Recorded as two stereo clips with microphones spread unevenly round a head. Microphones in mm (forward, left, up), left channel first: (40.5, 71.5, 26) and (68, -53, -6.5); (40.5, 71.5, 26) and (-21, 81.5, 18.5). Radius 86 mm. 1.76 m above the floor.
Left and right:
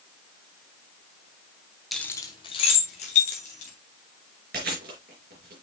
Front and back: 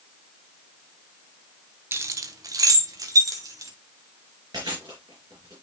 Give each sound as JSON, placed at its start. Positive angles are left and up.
{"t": 1.9, "sound": "keys jangling", "azimuth_deg": 165, "distance_m": 0.6}
{"t": 4.5, "sound": "chewing", "azimuth_deg": -120, "distance_m": 4.0}